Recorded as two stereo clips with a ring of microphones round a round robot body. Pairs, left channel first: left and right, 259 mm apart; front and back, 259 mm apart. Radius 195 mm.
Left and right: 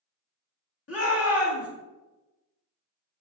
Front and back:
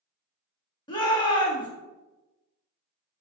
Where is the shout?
70° left, 1.6 m.